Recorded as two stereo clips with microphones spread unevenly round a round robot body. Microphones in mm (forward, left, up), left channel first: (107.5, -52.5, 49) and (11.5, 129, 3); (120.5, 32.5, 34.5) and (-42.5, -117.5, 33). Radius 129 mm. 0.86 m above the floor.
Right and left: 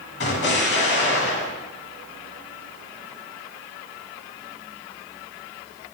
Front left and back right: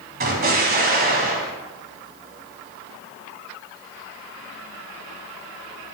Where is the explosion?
95° right, 1.4 m.